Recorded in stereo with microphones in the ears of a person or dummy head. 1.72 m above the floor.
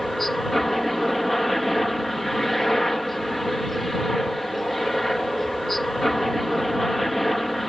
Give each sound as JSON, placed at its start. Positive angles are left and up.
{"t": 0.0, "sound": "a helicopter", "side_deg": 0}